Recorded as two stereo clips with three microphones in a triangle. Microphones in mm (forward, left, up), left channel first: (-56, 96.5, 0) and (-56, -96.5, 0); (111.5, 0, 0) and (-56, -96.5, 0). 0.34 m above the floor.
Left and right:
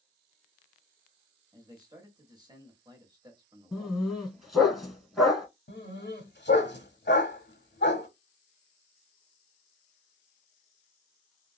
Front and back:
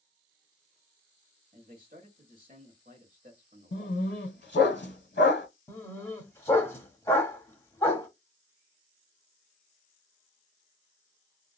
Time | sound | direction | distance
1.5 | a man speaking | 150° right | 1.1 m
3.7 | a dog barking | straight ahead | 0.8 m
5.7 | a dog barking | 100° left | 0.8 m